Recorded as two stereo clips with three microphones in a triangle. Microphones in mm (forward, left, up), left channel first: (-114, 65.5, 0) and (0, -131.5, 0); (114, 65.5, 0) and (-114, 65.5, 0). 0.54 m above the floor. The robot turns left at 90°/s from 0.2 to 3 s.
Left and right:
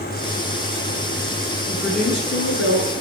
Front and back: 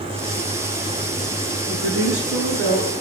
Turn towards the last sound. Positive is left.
turn(degrees=110)